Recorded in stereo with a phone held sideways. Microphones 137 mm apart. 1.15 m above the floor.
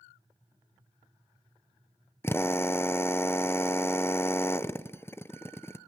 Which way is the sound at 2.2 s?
15° left (ahead or behind).